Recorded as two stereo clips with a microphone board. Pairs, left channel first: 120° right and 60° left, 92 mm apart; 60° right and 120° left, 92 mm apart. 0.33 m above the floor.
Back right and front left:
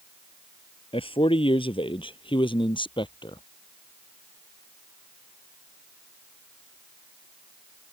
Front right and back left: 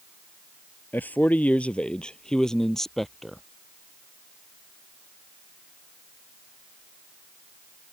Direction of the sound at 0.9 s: 130° right.